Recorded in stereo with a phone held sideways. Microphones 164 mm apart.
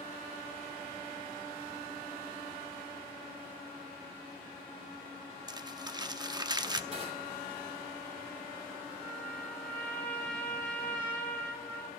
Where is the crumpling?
25° right (ahead or behind), 0.6 m.